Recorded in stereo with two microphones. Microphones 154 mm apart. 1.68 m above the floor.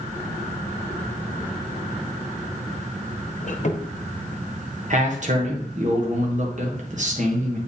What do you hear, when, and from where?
3.4 s a squeak: 50° left (ahead or behind), 0.9 m
4.9 s a man speaking: 55° right (ahead or behind), 1.5 m